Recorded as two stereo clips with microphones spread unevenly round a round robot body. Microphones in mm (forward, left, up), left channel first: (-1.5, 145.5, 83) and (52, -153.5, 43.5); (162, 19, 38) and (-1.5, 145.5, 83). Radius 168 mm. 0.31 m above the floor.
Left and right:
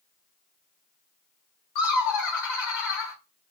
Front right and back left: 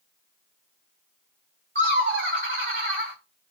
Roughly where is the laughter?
Behind left.